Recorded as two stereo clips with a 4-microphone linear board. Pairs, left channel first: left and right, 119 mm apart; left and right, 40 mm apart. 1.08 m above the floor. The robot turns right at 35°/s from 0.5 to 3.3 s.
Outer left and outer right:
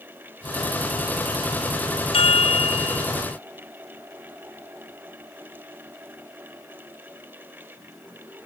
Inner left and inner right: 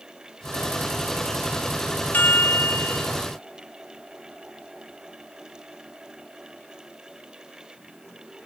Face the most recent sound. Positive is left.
turn(degrees=110)